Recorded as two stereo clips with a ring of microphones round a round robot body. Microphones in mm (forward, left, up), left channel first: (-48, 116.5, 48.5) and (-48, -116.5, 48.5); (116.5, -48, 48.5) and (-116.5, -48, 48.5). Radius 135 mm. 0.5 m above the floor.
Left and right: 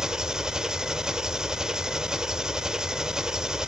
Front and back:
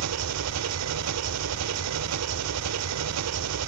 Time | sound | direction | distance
0.0 | an engine running | 175° right | 0.9 m